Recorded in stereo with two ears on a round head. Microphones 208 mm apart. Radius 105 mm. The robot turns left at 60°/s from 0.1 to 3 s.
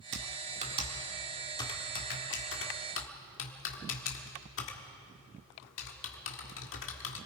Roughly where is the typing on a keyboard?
Right.